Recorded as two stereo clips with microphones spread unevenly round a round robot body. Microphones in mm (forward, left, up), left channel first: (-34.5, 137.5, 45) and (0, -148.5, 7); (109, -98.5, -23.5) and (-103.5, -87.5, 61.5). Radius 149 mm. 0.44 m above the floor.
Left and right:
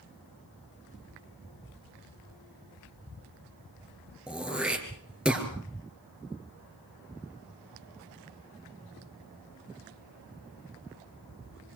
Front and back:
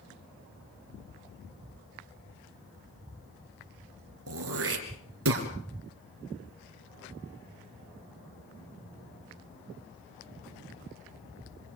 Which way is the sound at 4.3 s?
170° right.